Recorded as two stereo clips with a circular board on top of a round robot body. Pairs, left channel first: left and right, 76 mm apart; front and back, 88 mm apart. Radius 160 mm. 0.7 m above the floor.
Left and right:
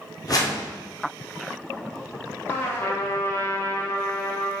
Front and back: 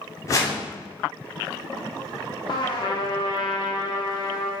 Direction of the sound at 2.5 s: 35° left.